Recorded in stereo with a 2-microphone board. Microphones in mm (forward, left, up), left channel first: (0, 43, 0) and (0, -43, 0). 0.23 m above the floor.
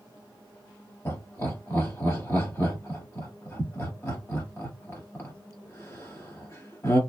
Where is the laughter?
30° left (ahead or behind), 1.2 m.